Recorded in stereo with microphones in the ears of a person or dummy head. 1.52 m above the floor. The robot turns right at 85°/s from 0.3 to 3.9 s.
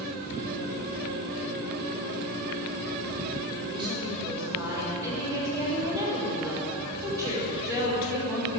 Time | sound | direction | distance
3.7 | a woman speaking | 40° right (ahead or behind) | 6.5 m